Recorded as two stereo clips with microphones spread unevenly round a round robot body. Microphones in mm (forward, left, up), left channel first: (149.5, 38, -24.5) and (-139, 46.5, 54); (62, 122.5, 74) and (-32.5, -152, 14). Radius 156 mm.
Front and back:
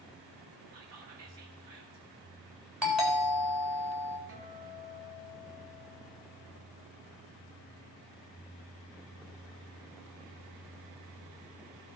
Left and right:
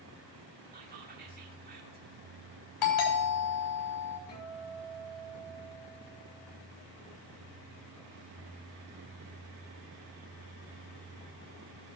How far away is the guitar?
About 5.5 m.